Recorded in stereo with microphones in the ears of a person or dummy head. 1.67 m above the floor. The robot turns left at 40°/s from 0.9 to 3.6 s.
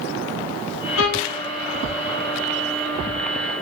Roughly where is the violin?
Left.